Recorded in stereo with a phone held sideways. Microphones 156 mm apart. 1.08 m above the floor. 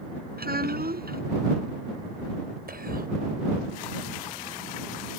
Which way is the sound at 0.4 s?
80° right.